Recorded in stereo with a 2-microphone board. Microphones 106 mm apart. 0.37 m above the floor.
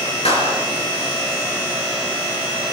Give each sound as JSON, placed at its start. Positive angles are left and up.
{"t": 0.2, "sound": "a clap", "side_deg": 75, "distance_m": 5.5}